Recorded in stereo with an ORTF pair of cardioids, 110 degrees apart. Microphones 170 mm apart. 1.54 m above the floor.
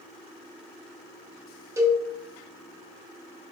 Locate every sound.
1.8 s a cowbell: 20° right, 0.9 m